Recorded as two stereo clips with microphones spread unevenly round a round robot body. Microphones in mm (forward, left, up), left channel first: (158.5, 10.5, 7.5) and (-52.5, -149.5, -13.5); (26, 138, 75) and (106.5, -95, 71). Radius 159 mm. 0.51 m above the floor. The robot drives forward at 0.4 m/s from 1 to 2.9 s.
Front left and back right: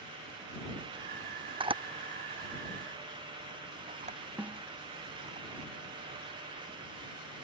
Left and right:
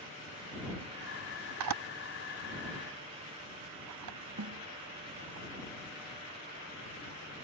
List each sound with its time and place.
1.6 s a camera shutter: 70° right; by 5.4 s 80° right
4.4 s a snare drum: 55° right